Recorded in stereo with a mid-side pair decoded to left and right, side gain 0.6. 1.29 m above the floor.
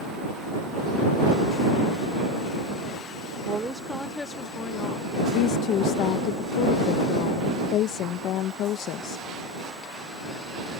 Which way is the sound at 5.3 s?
65° left.